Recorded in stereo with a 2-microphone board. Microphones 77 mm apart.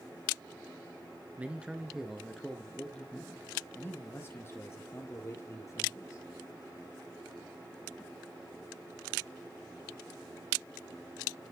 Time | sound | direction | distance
1.4 | a man speaking | 20° right (ahead or behind) | 1.4 m